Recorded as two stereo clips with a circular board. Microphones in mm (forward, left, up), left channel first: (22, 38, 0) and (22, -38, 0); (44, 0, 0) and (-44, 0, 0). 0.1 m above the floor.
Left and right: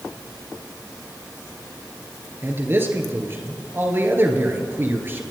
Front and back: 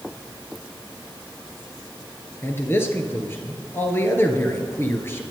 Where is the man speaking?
50° right, 1.9 m.